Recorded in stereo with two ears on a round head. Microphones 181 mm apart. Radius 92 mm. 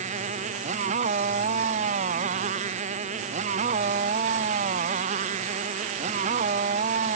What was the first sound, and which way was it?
A motorcycle, 35° right (ahead or behind).